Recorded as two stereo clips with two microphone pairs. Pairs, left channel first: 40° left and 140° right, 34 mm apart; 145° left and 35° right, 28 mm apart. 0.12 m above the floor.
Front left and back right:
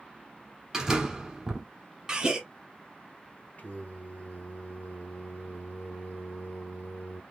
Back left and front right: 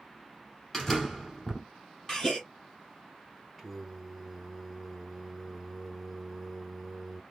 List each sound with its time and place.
0.7 s a door slam: 165° right, 1.2 m
2.1 s a gasp: 175° right, 1.5 m
3.6 s singing: 55° left, 1.1 m